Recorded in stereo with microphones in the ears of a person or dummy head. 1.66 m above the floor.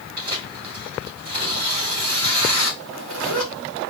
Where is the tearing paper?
50° right (ahead or behind), 2.5 m.